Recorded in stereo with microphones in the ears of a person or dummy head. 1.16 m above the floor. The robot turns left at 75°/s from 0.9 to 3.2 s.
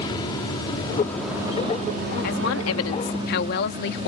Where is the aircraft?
25° left (ahead or behind); by 4.1 s 25° right (ahead or behind).